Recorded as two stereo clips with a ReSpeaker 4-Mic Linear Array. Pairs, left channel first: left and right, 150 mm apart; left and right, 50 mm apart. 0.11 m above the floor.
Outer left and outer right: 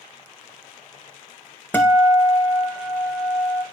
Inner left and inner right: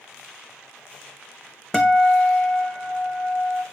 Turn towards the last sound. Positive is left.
turn(degrees=15)  # may be behind; listen again after turning